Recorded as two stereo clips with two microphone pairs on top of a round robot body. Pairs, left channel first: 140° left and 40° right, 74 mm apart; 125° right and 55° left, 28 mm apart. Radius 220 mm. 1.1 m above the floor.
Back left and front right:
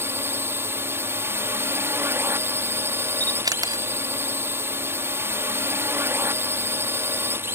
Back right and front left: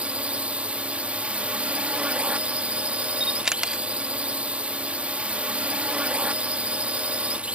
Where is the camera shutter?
10° right.